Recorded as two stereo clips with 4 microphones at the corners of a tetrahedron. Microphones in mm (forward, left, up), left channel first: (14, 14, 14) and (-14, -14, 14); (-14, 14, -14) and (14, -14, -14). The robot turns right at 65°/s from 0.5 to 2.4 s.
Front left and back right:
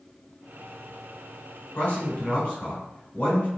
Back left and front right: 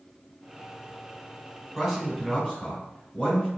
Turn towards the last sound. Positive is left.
turn(degrees=75)